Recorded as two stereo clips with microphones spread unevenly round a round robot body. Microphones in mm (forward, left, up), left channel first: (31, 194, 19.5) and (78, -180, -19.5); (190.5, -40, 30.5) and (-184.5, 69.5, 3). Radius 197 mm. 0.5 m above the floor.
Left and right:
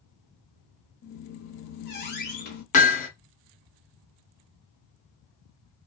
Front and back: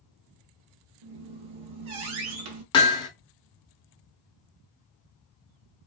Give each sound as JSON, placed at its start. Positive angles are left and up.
{"t": 1.0, "sound": "a squeak", "azimuth_deg": 165, "distance_m": 0.7}
{"t": 2.7, "sound": "hammering", "azimuth_deg": 50, "distance_m": 0.7}